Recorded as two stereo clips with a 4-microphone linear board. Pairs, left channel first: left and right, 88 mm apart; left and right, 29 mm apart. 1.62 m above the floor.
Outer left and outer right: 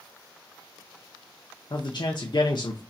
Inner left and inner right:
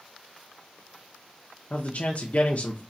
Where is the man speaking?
60° left (ahead or behind), 0.7 m.